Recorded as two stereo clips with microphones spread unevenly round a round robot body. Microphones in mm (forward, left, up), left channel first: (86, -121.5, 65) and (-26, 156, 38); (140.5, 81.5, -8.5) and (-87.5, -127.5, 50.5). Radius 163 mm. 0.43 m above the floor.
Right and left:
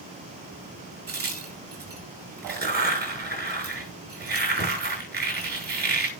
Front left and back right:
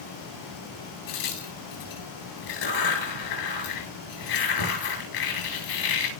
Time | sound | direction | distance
1.1 | a crack | 55° left | 8 m